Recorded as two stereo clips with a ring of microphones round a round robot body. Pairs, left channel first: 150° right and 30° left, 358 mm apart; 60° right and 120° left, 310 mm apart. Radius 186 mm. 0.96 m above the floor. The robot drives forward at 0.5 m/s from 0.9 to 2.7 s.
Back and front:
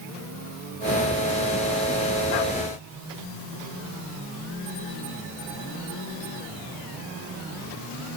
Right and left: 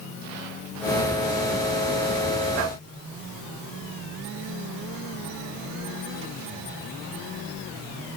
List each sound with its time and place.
Only background noise.